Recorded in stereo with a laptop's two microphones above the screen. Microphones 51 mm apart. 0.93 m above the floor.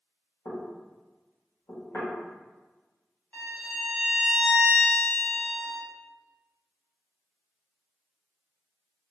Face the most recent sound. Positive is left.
turn(degrees=30)  # may be behind; listen again after turning